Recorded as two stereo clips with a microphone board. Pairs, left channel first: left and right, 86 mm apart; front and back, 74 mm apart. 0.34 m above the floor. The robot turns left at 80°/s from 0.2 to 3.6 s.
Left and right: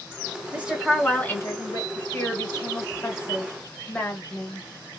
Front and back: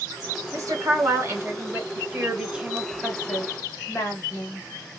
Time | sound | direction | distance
0.5 | a woman speaking | 155° right | 1.4 m
1.9 | a woman speaking | 160° left | 1.4 m